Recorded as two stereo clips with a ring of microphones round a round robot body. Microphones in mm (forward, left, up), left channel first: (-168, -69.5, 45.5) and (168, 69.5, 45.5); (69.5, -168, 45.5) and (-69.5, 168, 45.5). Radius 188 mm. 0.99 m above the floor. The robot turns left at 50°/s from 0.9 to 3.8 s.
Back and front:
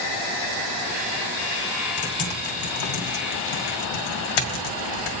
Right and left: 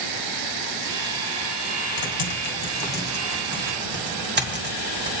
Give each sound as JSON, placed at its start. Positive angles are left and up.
{"t": 2.0, "sound": "typing on a keyboard", "azimuth_deg": -95, "distance_m": 1.8}